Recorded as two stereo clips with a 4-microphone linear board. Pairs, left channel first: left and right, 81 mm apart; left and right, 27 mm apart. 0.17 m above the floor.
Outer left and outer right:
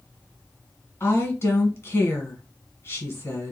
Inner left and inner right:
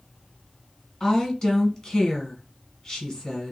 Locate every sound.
1.0 s a woman speaking: 30° left (ahead or behind), 1.8 m